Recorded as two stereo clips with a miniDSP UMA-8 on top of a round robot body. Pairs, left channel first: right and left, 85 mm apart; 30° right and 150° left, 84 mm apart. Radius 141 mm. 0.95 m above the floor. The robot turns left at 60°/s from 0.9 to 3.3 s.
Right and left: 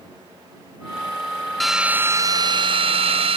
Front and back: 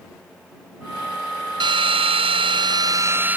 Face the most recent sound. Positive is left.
turn(degrees=80)